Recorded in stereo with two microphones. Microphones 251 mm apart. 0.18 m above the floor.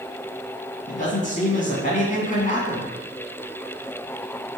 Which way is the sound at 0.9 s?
35° left (ahead or behind).